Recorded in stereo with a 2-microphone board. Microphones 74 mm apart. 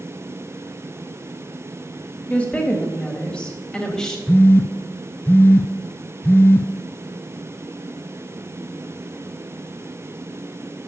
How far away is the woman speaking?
About 1.7 m.